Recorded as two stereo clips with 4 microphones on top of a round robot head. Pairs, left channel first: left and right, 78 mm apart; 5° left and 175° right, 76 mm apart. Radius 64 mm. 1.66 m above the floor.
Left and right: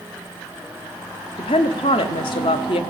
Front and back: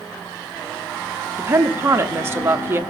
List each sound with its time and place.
1.4 s a woman speaking: 125° left, 0.8 m